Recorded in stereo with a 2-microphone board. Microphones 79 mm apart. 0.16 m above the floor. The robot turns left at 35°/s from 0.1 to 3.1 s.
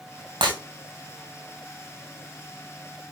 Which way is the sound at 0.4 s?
65° right (ahead or behind).